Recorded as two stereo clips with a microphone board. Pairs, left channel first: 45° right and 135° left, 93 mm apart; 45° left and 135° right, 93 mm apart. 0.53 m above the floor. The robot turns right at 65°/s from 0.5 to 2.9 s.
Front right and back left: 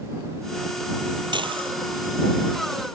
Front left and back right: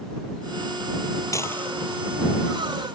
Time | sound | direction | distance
1.3 | dishes clattering | 100° left | ?